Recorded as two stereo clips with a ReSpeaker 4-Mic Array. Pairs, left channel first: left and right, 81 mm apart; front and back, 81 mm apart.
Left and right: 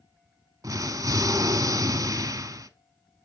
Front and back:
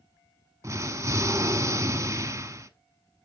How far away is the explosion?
About 0.7 m.